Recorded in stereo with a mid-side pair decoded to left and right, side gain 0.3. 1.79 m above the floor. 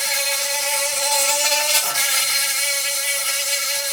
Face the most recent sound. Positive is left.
turn(degrees=5)